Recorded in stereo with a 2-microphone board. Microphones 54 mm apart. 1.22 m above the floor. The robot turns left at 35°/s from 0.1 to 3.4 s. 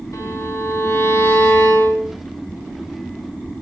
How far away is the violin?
About 9 m.